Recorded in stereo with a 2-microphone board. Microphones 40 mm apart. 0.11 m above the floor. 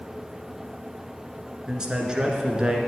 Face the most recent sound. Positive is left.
turn(degrees=-20)  # may be behind; listen again after turning